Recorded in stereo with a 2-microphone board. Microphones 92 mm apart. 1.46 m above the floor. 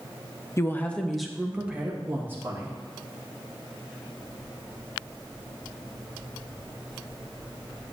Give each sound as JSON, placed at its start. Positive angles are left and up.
{"t": 0.6, "sound": "a woman speaking", "side_deg": 30, "distance_m": 0.8}